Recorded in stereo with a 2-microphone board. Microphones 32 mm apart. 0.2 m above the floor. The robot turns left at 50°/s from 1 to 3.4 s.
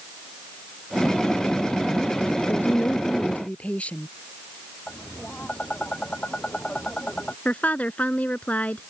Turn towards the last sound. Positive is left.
turn(degrees=50)  # may be behind; listen again after turning